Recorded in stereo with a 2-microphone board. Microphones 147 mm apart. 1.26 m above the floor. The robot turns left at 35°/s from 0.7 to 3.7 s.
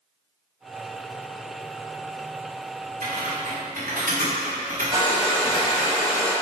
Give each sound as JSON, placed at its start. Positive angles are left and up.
{"t": 3.0, "sound": "typing on a keyboard", "side_deg": -65, "distance_m": 2.5}
{"t": 4.9, "sound": "a hair dryer", "side_deg": -30, "distance_m": 2.0}